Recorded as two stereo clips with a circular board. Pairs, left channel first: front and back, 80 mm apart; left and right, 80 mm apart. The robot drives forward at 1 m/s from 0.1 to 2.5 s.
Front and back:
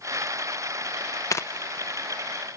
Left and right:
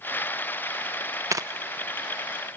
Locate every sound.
1.3 s tearing paper: 40° right, 0.7 m; by 1.4 s 50° right, 0.6 m